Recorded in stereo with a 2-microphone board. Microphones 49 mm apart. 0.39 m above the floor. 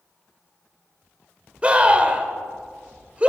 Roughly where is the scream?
Right.